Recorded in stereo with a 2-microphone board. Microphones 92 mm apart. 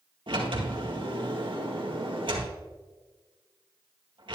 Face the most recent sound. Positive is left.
turn(degrees=-65)  # may be behind; listen again after turning